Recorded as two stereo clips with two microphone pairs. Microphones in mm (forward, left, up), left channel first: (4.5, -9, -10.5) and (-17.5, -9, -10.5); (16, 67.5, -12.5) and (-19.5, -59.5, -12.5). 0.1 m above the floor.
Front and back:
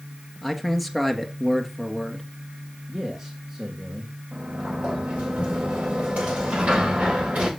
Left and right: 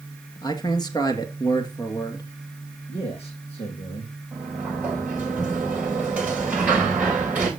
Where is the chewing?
I don't hear chewing.